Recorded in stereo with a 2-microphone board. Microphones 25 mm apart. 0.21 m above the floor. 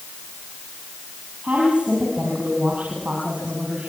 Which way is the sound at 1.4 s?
70° right (ahead or behind).